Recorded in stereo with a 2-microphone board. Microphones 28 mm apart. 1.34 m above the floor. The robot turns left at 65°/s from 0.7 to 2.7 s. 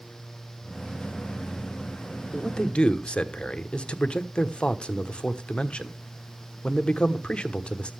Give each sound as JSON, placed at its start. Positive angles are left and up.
{"t": 2.3, "sound": "a man speaking", "side_deg": 15, "distance_m": 1.0}